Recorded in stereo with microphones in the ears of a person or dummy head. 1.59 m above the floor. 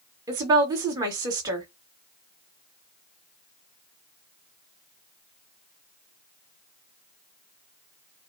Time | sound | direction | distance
0.3 | a woman speaking | 20° right (ahead or behind) | 1.6 m